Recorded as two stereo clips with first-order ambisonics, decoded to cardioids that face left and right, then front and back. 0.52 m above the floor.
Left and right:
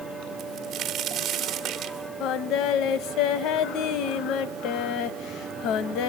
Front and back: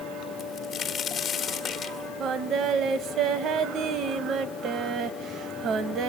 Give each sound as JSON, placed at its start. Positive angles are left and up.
{"t": 0.4, "sound": "a crack", "azimuth_deg": -60, "distance_m": 1.6}
{"t": 2.2, "sound": "singing", "azimuth_deg": 130, "distance_m": 1.0}